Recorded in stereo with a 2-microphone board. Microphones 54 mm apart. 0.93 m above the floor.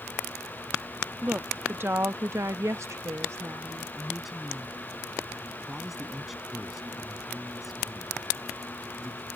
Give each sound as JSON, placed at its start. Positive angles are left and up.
{"t": 1.2, "sound": "a woman speaking", "side_deg": -30}
{"t": 4.0, "sound": "a man speaking", "side_deg": -5}